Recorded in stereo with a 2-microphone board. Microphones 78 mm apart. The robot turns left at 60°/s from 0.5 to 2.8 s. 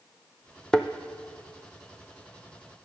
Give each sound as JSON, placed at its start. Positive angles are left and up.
{"t": 0.7, "sound": "a thud", "side_deg": 10, "distance_m": 0.5}